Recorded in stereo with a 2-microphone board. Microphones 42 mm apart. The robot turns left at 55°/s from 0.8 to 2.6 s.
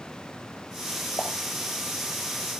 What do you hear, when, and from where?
1.2 s a pop: 55° left (ahead or behind), 5 m; by 1.3 s 50° left (ahead or behind), 5 m